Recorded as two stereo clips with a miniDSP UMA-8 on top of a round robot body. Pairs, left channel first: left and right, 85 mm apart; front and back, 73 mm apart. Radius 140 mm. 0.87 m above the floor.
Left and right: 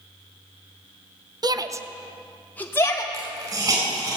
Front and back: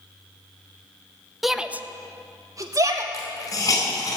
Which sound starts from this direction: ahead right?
A hiss, at 3.1 s.